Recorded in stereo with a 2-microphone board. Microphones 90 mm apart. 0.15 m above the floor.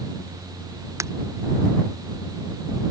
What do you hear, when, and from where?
1.0 s breaking glass: 30° right (ahead or behind)